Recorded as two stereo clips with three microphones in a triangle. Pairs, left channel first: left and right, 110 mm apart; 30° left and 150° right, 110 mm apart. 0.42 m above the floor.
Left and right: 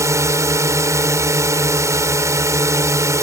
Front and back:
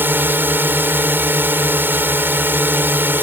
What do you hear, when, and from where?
0.0 s a drone: 100° right